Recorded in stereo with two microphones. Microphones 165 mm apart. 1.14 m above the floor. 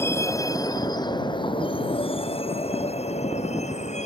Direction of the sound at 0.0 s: 15° left (ahead or behind).